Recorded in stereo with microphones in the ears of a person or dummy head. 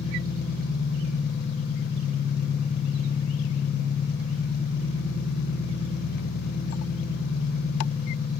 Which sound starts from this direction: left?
An engine running, at 0.0 s.